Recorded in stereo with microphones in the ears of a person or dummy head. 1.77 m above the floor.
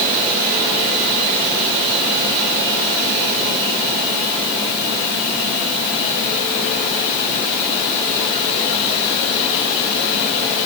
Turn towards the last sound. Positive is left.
No sound to turn to.